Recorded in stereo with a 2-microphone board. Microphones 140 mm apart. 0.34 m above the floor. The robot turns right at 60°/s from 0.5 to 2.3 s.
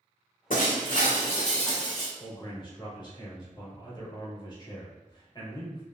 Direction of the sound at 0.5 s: 90° left.